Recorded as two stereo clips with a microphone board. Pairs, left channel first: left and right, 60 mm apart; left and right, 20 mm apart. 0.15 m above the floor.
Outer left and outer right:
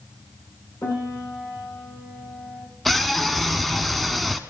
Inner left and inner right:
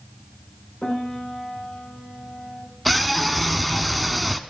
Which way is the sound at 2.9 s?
Centre (ahead or behind).